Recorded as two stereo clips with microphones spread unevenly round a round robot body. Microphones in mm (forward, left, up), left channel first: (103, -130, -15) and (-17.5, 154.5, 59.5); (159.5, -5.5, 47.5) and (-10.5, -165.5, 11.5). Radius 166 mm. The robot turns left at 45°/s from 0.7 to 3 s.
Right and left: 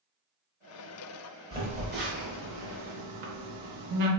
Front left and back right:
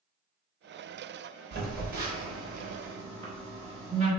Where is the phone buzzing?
160° right, 0.6 m; by 4.1 s 130° left, 0.6 m.